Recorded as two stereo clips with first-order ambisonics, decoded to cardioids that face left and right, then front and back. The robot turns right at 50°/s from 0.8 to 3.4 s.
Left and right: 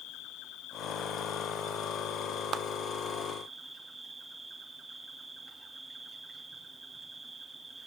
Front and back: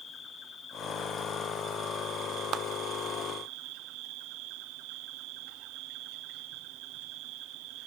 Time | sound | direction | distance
0.0 | an insect | 55° left | 2.5 m
2.5 | a clap | 135° right | 0.5 m